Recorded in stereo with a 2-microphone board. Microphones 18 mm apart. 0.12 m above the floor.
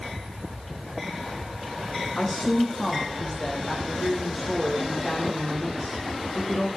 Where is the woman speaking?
5° right (ahead or behind), 5 m.